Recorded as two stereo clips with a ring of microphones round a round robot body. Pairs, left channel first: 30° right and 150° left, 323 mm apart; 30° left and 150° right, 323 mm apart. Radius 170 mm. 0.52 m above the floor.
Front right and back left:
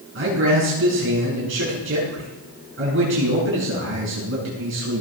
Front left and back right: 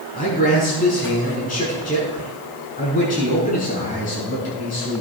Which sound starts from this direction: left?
A man speaking, at 0.1 s.